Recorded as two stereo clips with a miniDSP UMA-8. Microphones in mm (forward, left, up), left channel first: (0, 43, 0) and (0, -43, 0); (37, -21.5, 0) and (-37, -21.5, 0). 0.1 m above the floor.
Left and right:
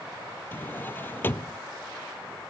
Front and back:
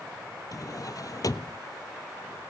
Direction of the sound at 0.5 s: 30° left.